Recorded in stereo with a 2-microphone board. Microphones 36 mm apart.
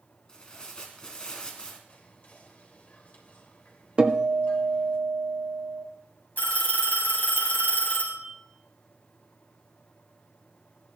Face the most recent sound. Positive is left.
turn(degrees=60)  # may be behind; listen again after turning